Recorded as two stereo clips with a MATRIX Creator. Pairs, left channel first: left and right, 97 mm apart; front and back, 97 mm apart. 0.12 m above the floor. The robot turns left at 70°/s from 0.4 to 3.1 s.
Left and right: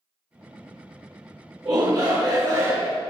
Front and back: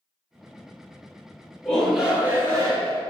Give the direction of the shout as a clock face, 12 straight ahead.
2 o'clock.